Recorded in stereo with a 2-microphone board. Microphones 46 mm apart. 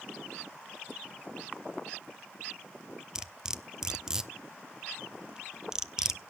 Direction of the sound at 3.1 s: 15° right (ahead or behind).